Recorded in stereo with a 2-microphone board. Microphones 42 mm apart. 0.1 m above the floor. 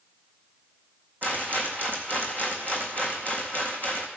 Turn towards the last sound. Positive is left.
turn(degrees=-50)  # may be behind; listen again after turning